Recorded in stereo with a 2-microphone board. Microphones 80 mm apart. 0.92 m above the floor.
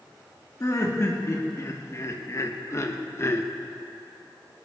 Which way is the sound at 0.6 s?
35° left (ahead or behind).